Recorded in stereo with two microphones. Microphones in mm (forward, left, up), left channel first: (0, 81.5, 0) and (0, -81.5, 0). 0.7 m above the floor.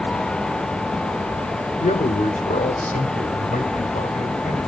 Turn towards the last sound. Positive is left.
turn(degrees=55)  # may be behind; listen again after turning